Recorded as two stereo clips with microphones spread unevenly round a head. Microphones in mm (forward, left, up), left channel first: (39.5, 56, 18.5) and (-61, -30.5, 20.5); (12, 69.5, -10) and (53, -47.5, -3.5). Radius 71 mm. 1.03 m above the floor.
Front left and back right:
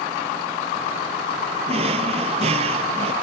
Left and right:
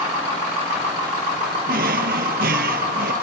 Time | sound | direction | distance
1.7 | a drawer | 90° right | ?